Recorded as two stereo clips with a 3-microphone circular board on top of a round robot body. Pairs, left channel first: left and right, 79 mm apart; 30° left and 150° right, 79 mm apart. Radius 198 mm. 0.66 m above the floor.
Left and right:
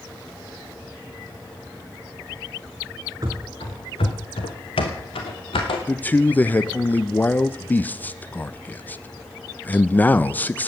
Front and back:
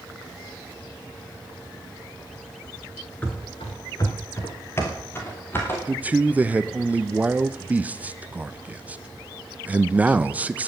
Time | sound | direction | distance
3.2 | running footsteps | 35° right | 0.6 m
5.9 | a man speaking | 150° left | 0.8 m